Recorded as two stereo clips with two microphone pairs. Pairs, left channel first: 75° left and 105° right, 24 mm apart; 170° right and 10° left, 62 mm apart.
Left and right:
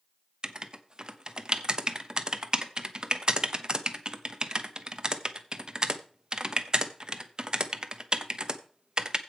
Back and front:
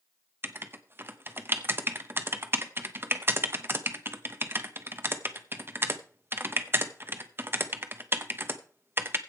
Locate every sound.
0.4 s writing: 45° right, 0.9 m